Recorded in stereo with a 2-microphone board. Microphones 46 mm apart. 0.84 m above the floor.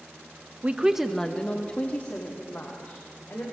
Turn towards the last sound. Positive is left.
turn(degrees=45)  # may be behind; listen again after turning